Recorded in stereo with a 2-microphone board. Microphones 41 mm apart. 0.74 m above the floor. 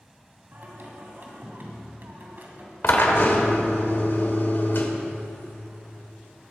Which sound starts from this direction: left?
A drill, at 2.8 s.